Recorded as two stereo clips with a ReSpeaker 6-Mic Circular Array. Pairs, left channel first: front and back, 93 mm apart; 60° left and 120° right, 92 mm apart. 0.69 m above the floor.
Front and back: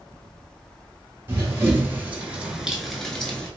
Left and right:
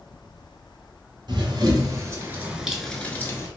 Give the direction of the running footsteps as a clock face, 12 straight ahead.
4 o'clock.